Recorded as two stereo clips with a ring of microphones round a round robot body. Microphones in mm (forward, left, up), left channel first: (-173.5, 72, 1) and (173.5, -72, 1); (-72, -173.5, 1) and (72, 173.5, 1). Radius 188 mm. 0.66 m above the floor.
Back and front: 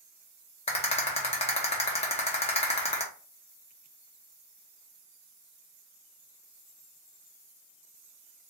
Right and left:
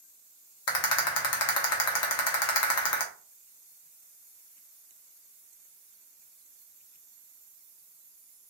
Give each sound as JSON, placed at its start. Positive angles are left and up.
{"t": 0.7, "sound": "a rattle", "azimuth_deg": -135, "distance_m": 0.5}